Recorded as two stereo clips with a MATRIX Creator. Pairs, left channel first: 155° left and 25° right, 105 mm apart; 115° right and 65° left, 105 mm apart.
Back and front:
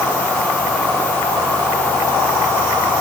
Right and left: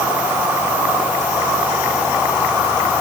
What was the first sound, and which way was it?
Only background noise.